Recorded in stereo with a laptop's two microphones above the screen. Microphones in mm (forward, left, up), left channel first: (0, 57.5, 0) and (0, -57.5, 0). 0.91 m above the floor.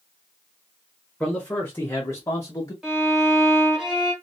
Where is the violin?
5° right (ahead or behind), 0.8 m.